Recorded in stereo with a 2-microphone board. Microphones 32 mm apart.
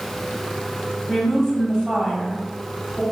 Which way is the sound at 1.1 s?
15° left (ahead or behind).